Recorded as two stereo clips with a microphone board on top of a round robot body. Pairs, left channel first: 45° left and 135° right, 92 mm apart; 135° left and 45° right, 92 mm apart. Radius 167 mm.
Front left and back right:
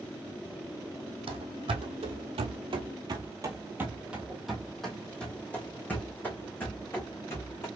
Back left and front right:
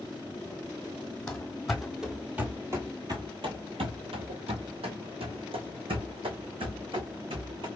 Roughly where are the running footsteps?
Behind right.